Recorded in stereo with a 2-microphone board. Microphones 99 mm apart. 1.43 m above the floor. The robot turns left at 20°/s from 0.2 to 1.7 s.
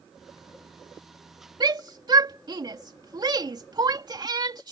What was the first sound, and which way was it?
A shout, 45° right (ahead or behind).